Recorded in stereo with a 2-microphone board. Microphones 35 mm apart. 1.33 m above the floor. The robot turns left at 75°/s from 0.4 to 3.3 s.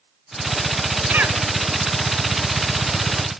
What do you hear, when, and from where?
1.1 s a cough: 50° right (ahead or behind), 3 m; by 1.4 s 75° right (ahead or behind), 3 m